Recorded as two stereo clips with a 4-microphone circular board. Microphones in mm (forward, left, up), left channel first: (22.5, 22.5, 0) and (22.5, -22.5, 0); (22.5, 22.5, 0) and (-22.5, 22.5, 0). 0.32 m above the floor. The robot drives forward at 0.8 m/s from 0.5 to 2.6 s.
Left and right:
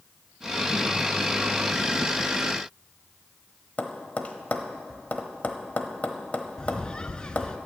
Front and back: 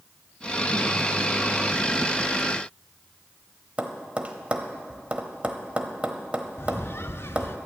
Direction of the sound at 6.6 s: 20° left.